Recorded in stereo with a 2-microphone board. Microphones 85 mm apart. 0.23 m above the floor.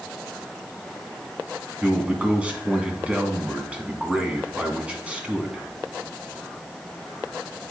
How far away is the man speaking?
About 1.7 m.